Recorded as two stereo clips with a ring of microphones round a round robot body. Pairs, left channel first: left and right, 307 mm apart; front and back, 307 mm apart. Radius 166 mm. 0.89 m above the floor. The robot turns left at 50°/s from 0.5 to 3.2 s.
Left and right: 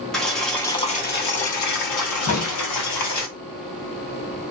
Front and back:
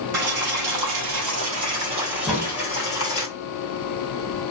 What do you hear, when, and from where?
0.1 s boiling: straight behind, 1.5 m; by 3.3 s 45° left, 1.5 m
2.3 s a crack: 90° left, 1.5 m; by 2.6 s 70° left, 1.5 m